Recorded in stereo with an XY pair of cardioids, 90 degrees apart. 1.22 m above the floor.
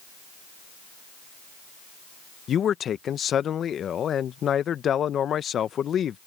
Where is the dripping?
No dripping in this recording.